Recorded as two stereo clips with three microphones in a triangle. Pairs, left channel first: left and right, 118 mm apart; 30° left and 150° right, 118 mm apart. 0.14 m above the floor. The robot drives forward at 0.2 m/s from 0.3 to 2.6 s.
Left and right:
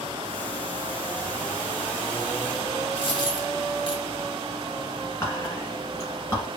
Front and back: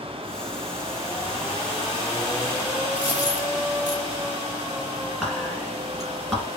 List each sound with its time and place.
3.0 s a dropped coin: 135° left, 1.4 m
5.2 s whispering: 120° left, 1.2 m